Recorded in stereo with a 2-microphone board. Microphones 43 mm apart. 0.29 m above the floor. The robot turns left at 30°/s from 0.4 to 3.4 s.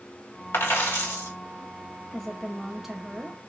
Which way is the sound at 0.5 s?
70° left (ahead or behind).